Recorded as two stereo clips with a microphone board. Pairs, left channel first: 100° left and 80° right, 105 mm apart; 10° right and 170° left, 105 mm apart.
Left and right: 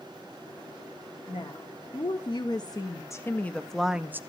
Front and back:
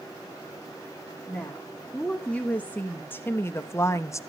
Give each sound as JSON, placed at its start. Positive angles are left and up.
{"t": 1.3, "sound": "a woman speaking", "azimuth_deg": 70, "distance_m": 1.5}